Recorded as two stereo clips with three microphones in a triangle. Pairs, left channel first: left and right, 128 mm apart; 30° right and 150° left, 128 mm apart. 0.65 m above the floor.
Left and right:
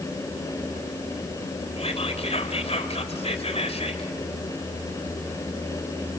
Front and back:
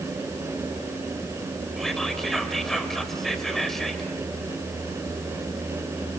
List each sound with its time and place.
1.8 s whispering: 60° left, 3.5 m